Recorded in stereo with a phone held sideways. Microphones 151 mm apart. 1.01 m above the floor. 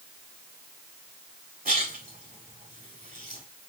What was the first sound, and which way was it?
A splash, 90° right.